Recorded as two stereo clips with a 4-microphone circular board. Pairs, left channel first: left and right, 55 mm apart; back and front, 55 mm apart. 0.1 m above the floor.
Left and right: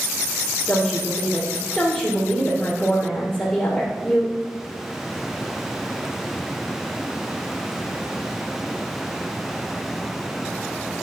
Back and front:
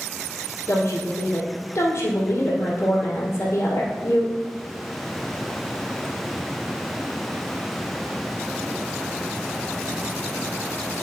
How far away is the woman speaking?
About 2.5 m.